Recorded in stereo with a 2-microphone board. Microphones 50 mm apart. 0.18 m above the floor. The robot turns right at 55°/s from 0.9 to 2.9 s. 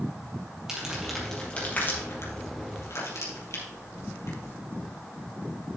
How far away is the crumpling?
About 4 m.